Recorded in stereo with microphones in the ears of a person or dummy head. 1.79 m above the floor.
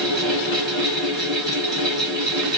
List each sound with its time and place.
0.0 s a fan: 5° left (ahead or behind), 2.5 m